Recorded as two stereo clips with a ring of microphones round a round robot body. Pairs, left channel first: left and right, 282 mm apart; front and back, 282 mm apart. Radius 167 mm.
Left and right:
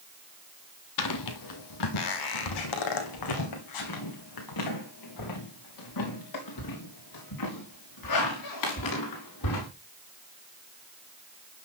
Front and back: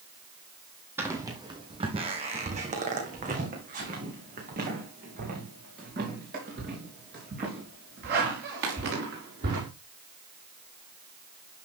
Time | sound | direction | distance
1.0 | footsteps | 100° left | 1.1 m